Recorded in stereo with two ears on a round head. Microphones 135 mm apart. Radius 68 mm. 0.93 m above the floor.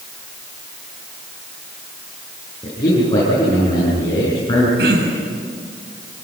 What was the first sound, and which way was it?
A man speaking, 25° left (ahead or behind).